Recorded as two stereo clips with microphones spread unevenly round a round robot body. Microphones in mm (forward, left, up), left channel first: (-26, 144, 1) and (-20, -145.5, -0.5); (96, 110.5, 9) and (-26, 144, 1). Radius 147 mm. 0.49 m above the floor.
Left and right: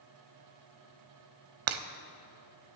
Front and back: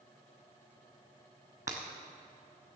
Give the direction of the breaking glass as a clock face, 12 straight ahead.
4 o'clock.